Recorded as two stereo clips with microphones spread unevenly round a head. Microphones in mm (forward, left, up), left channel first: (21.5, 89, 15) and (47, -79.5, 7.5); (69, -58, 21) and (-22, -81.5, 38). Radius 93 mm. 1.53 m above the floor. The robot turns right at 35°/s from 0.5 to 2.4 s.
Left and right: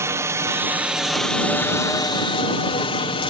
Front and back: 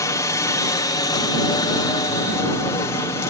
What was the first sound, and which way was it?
A helicopter, 15° right.